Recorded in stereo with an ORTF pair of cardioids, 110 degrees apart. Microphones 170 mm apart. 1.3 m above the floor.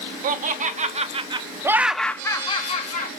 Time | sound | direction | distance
0.2 | laughter | 55° right | 1.1 m